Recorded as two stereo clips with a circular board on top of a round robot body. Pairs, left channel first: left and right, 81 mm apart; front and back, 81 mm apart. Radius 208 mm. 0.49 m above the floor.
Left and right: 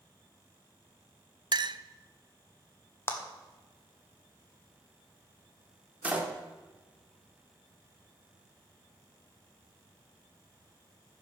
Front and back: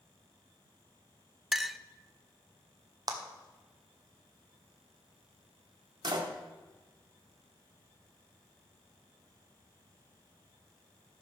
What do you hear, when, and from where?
1.5 s a clink: 95° right, 0.6 m
3.1 s a clap: 145° left, 1.5 m
6.0 s a door slam: 160° right, 1.6 m